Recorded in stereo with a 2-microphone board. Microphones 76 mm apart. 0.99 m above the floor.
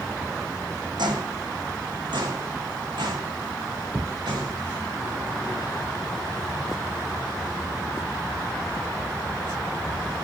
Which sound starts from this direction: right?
Footsteps, at 1.0 s.